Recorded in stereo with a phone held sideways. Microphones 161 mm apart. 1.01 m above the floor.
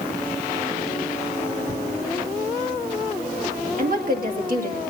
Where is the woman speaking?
60° right (ahead or behind), 1.9 m.